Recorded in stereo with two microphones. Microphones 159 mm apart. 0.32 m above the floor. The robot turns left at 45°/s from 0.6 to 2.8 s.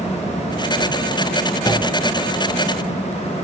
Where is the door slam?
25° left (ahead or behind), 2.5 m; by 2.0 s 40° left (ahead or behind), 2.5 m.